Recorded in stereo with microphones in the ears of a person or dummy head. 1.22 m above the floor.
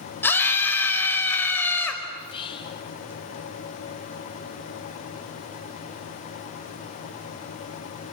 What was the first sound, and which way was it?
A scream, 15° left (ahead or behind).